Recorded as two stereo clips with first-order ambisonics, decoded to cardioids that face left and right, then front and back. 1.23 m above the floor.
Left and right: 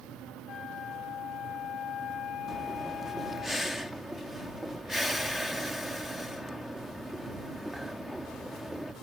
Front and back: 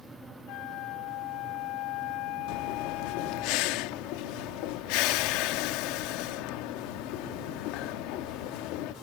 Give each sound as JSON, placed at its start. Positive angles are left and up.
{"t": 0.5, "sound": "a flute", "azimuth_deg": 35}
{"t": 2.5, "sound": "breathing", "azimuth_deg": 0}